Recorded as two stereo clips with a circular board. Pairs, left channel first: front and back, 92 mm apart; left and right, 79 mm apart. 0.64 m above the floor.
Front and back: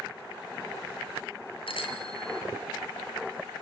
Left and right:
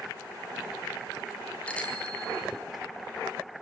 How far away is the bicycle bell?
About 5 m.